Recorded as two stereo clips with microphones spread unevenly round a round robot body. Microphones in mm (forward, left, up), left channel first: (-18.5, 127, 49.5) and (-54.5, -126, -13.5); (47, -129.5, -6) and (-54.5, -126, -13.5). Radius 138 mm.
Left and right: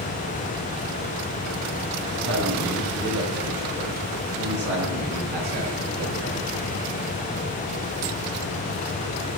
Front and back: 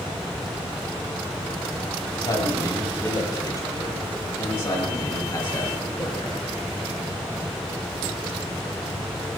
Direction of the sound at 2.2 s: 50° right.